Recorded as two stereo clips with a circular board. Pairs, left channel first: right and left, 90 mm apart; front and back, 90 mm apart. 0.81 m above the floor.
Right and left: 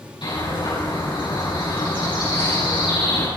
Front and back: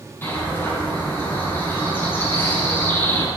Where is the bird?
65° right, 8 m.